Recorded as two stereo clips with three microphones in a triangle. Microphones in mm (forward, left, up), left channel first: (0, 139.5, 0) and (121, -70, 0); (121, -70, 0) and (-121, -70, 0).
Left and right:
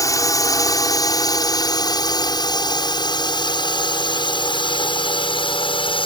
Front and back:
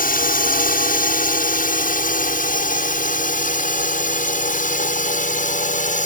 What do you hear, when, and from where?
0.0 s a drone: 45° left; by 6.1 s 55° left